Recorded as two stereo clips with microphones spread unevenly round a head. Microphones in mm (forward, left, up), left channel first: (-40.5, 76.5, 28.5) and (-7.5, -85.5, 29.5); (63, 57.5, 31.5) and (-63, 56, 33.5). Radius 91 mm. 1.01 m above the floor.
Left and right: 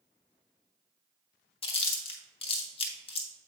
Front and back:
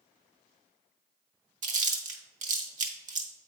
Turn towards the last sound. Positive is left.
turn(degrees=160)